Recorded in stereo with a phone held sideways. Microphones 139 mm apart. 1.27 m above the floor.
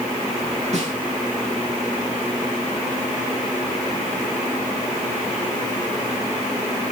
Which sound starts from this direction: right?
A snare drum, at 0.7 s.